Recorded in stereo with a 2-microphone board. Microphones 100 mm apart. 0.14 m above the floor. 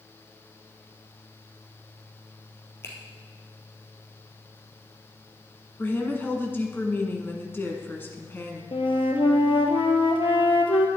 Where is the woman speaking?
20° left (ahead or behind), 1.5 m.